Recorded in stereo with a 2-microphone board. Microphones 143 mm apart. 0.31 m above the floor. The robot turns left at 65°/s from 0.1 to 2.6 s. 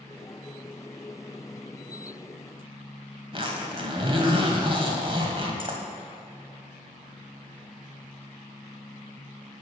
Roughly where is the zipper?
Right.